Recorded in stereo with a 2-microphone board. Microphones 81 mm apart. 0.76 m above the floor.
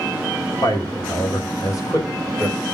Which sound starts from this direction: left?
A man speaking, at 0.6 s.